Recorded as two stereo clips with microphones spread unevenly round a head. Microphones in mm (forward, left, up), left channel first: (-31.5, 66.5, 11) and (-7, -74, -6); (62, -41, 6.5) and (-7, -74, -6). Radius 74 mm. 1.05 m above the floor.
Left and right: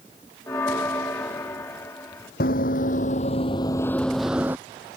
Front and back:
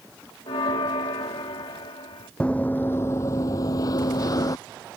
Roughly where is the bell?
Ahead left.